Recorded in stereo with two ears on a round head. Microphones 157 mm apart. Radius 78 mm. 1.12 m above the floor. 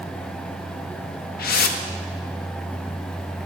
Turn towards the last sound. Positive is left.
turn(degrees=55)  # may be behind; listen again after turning